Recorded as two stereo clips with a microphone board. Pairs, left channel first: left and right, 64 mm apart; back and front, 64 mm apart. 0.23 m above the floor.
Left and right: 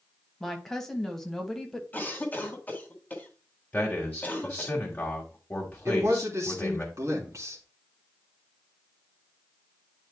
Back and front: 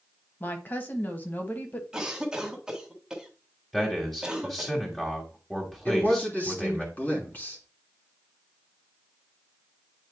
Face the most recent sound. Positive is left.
turn(degrees=-120)